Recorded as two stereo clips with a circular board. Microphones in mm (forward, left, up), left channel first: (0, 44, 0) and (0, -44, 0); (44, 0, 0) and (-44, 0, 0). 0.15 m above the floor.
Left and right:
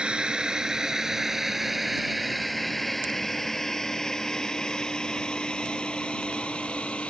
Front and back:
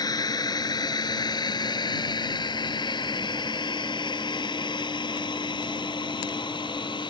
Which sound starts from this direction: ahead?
A drone, at 0.0 s.